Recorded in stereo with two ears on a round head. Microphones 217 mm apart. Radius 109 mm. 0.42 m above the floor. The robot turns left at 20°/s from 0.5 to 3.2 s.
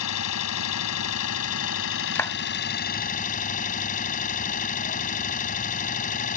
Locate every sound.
0.0 s an engine running: 90° left; by 6.4 s 35° left
2.1 s a clap: 10° left (ahead or behind)